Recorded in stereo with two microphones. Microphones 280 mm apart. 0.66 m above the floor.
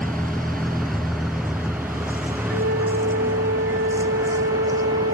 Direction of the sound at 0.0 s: Centre (ahead or behind).